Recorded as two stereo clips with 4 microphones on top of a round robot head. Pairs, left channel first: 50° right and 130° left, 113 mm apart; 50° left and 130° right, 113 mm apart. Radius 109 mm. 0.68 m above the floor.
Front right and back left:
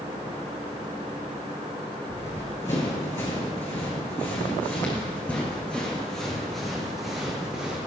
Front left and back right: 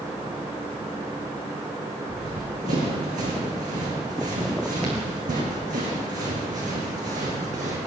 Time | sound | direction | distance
2.1 | running footsteps | 110° right | 4 m